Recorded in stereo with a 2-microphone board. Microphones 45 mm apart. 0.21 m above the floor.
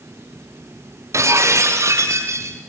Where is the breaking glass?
85° right, 5 m.